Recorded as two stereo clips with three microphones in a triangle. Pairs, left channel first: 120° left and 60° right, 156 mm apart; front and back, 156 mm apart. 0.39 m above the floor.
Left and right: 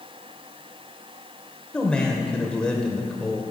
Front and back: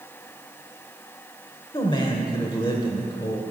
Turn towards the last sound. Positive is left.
turn(degrees=40)